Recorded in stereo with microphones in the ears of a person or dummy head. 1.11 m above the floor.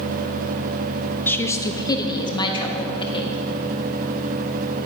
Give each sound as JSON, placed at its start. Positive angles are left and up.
{"t": 1.3, "sound": "a woman speaking", "side_deg": 10, "distance_m": 0.7}